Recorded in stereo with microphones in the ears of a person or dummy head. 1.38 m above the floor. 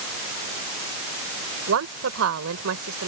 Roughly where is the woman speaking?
Right.